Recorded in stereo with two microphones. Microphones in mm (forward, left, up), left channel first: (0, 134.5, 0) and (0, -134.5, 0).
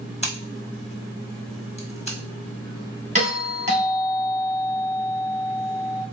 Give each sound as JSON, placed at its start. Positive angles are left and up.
{"t": 0.2, "sound": "scissors", "side_deg": 25, "distance_m": 1.3}
{"t": 3.1, "sound": "a doorbell", "side_deg": -30, "distance_m": 1.9}